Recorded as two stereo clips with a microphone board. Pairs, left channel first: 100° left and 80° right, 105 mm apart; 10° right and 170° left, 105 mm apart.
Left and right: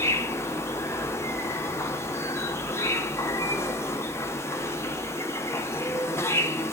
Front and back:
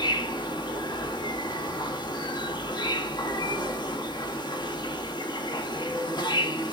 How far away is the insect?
About 0.9 m.